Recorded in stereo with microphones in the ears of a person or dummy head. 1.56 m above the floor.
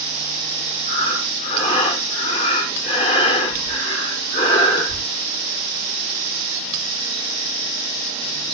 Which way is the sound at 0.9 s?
30° left (ahead or behind).